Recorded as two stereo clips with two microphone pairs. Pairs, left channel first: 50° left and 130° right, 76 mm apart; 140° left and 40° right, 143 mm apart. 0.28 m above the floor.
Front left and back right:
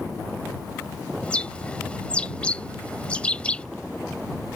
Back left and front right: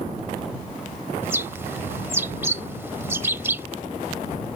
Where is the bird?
5° left.